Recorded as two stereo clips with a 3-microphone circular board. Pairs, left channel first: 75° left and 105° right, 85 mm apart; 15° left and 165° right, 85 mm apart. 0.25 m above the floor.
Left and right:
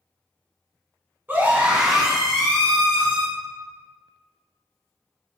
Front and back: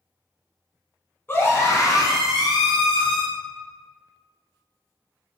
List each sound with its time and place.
1.3 s a scream: 40° right, 2 m; by 3.2 s 20° left, 3 m